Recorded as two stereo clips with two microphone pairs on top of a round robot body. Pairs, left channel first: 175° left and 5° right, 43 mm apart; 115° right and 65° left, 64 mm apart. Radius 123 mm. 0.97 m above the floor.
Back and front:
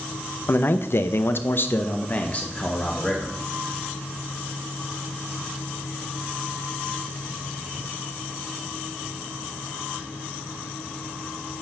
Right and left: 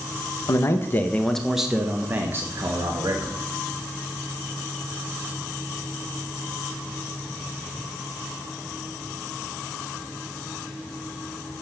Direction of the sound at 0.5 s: 155° right.